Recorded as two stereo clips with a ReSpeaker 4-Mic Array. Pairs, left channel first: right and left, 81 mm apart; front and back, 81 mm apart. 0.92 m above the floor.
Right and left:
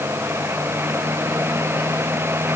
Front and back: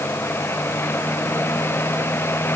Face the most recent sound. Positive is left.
No sound to turn to.